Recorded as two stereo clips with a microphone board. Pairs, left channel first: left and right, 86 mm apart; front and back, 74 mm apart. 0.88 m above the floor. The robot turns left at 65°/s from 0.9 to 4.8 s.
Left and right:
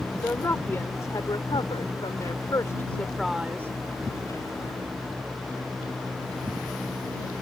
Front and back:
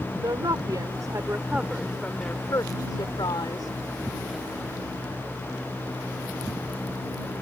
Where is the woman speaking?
150° left; by 3.7 s 35° right.